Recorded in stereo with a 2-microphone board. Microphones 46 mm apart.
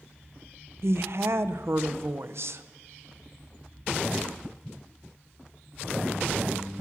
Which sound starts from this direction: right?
A woman speaking, at 0.8 s.